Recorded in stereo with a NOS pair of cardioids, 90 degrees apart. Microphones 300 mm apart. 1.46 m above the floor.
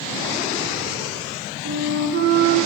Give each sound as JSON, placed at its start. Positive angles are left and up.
{"t": 1.6, "sound": "a flute", "azimuth_deg": -40, "distance_m": 0.6}